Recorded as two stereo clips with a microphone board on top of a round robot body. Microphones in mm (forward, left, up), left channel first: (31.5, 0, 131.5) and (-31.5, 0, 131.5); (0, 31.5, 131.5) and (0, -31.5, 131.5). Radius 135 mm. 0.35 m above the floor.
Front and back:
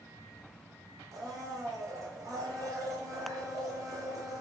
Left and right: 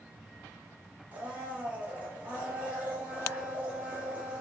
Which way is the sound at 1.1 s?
155° right.